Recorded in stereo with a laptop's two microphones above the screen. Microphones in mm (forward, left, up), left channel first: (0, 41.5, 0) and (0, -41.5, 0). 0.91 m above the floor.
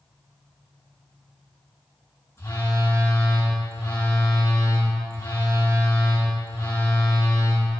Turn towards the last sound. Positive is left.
turn(degrees=35)  # may be behind; listen again after turning